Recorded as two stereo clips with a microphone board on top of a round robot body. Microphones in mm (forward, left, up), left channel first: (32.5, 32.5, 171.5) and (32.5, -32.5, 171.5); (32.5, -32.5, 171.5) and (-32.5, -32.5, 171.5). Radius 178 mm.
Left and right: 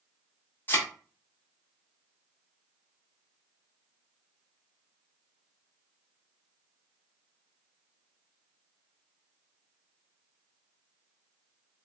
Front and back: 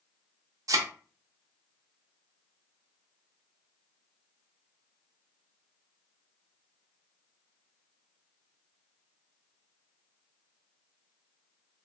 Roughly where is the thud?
Behind left.